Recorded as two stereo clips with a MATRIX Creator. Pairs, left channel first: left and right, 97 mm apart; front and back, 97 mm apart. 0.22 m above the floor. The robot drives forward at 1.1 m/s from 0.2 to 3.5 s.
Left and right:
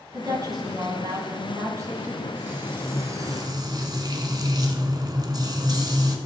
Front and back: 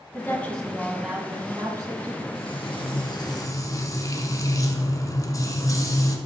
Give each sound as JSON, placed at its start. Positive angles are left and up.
{"t": 0.1, "sound": "a woman speaking", "azimuth_deg": -60, "distance_m": 1.7}
{"t": 2.4, "sound": "frying", "azimuth_deg": -20, "distance_m": 2.0}